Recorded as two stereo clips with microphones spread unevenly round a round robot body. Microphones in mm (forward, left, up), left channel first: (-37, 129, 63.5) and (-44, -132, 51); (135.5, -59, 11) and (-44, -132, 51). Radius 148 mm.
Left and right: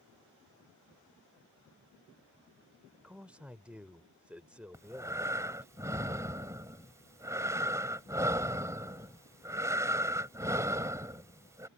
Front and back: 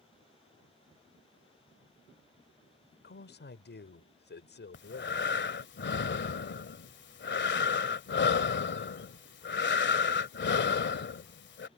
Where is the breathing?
10° right.